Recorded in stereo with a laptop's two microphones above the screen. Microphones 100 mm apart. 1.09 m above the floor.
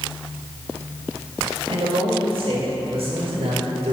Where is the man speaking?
70° right (ahead or behind), 4.5 m; by 3.9 s 80° right, 4.5 m.